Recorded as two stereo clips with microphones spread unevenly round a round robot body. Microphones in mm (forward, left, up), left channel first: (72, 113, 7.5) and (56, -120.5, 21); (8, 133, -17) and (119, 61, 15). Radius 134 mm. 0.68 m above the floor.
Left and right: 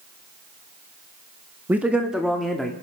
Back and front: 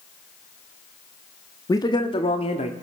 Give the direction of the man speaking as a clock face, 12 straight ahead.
6 o'clock.